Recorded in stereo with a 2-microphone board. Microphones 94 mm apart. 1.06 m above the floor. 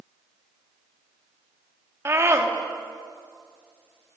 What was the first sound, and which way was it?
A scream, 30° right (ahead or behind).